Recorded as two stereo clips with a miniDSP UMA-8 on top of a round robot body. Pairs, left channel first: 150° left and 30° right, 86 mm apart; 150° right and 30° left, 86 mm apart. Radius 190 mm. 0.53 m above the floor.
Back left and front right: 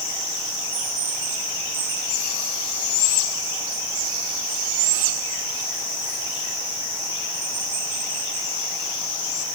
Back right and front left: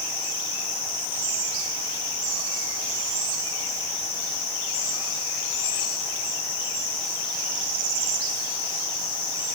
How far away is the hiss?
No hiss in this recording.